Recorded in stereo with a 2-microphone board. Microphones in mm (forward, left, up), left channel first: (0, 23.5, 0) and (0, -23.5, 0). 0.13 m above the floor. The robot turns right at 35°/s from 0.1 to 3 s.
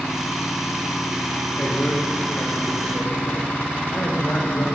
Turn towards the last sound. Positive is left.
turn(degrees=75)